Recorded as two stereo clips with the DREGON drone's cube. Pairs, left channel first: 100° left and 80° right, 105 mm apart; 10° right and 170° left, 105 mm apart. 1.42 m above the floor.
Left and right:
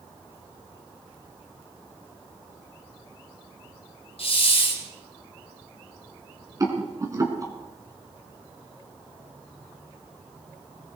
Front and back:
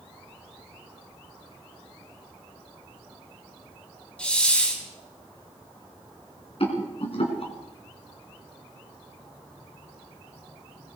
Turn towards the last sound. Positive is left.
turn(degrees=-25)